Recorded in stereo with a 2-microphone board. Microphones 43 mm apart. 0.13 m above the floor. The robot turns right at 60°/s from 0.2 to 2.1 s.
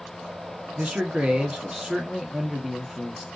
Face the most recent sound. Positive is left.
turn(degrees=-10)  # may be behind; listen again after turning